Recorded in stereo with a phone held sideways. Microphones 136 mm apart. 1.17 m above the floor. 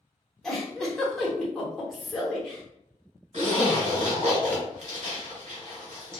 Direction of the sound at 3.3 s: 50° right (ahead or behind).